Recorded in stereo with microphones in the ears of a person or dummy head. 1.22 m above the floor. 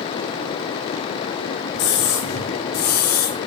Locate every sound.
1.7 s a scream: 60° left (ahead or behind), 3 m; by 3.4 s 45° left (ahead or behind), 2 m